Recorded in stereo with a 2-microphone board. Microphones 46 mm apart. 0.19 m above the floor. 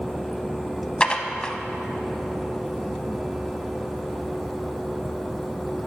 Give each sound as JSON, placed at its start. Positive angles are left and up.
{"t": 1.0, "sound": "dishes clattering", "side_deg": 20, "distance_m": 0.7}